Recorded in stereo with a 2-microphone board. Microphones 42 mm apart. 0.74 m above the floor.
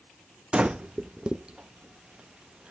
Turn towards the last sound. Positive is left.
turn(degrees=-20)  # may be behind; listen again after turning